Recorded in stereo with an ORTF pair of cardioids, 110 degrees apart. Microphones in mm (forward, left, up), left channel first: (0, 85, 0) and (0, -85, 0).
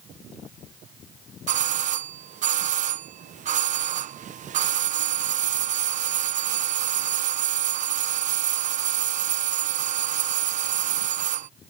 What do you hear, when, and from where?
1.5 s a doorbell: 50° right